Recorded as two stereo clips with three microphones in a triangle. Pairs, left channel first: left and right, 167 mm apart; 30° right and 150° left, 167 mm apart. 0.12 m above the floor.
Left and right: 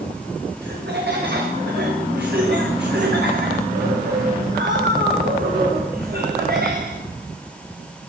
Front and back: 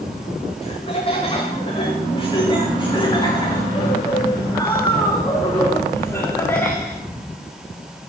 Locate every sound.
0.6 s laughter: 85° right, 10 m; by 7.0 s 110° right, 8 m